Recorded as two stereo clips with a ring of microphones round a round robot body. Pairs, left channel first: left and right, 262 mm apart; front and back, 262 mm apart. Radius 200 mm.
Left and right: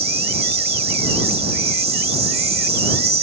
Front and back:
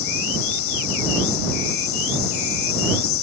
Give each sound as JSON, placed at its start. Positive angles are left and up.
{"t": 0.0, "sound": "an insect", "azimuth_deg": -25}